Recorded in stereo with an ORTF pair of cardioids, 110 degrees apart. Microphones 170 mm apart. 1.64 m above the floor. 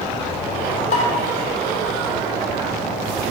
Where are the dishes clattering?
50° left, 3 m.